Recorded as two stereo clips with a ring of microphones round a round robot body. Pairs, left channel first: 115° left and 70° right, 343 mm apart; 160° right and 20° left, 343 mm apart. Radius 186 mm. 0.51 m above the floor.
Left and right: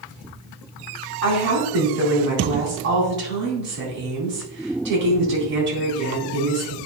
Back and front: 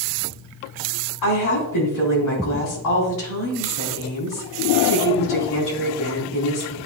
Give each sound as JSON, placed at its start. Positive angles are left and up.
{"t": 1.2, "sound": "a woman speaking", "azimuth_deg": -125, "distance_m": 4.0}